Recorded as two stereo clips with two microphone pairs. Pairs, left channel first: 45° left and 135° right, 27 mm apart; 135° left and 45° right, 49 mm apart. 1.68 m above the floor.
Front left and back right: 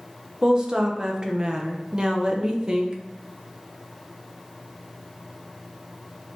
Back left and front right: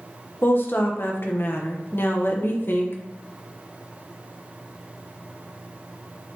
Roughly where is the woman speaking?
Behind.